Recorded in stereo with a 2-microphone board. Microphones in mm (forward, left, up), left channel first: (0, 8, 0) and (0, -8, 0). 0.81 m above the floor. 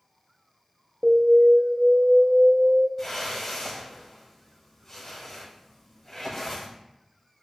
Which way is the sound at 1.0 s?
50° right (ahead or behind).